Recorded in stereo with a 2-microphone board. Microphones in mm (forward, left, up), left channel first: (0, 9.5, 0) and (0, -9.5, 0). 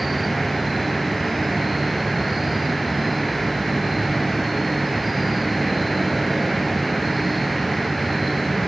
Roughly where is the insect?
Centre.